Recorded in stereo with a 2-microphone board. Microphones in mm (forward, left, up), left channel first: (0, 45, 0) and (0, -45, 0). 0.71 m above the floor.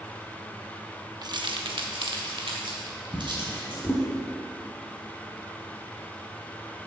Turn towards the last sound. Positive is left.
turn(degrees=20)  # may be behind; listen again after turning